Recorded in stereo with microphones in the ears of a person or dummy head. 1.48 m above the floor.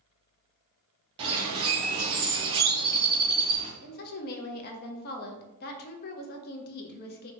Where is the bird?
25° right (ahead or behind), 0.7 m.